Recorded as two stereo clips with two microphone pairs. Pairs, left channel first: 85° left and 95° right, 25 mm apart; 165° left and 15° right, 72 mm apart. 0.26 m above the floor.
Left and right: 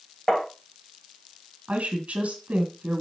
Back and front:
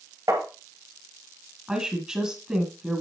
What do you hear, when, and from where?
0.3 s tapping: 15° left, 3.5 m
1.7 s a woman speaking: 95° right, 2 m